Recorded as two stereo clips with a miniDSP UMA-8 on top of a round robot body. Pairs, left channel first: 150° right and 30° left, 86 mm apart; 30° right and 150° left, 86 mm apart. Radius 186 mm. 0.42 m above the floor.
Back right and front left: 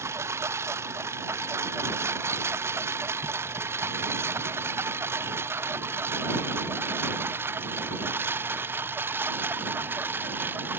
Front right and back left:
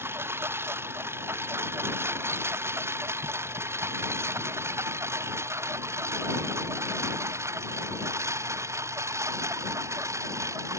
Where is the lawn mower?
90° left; by 10.8 s 95° left.